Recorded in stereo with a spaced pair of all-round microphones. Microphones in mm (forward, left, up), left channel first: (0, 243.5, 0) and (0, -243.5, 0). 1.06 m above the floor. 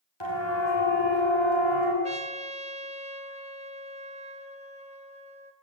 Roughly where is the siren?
Left.